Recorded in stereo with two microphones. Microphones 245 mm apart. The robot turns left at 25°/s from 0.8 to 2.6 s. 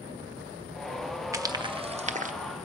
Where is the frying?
10° right (ahead or behind), 1.0 m; by 2.3 s 35° right (ahead or behind), 1.0 m.